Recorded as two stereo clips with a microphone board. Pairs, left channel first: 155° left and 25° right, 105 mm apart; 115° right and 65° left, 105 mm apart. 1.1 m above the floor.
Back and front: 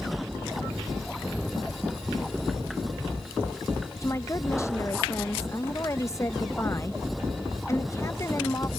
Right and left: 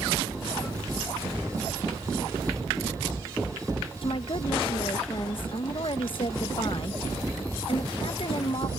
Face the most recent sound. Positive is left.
turn(degrees=-140)